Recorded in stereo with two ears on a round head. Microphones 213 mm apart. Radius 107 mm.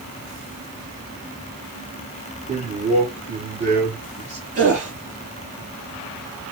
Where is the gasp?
30° right (ahead or behind), 7.5 m.